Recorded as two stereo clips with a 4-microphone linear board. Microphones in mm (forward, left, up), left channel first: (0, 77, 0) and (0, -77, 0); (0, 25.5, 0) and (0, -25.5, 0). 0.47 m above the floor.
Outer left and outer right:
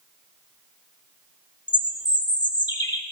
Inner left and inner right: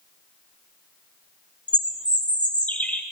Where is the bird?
25° left (ahead or behind), 0.8 m.